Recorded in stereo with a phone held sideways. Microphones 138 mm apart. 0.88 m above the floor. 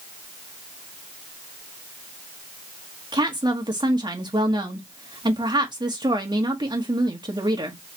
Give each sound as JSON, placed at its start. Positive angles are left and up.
{"t": 3.1, "sound": "a woman speaking", "side_deg": -35, "distance_m": 1.1}